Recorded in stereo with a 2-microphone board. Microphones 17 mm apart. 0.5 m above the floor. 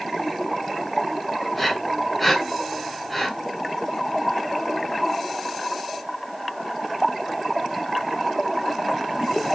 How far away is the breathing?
About 3.5 m.